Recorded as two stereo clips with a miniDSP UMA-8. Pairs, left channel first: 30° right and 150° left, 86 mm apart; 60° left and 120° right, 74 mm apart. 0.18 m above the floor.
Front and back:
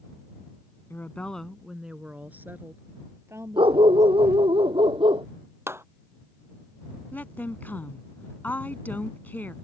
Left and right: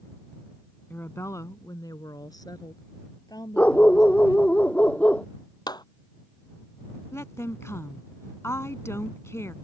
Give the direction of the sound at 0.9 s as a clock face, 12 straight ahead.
12 o'clock.